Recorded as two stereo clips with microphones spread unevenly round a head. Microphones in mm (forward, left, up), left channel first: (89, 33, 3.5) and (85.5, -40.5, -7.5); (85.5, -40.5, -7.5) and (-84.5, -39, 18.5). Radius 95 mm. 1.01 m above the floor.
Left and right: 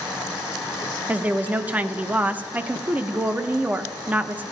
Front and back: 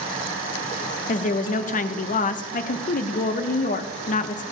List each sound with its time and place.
1.1 s a woman speaking: 30° right, 0.7 m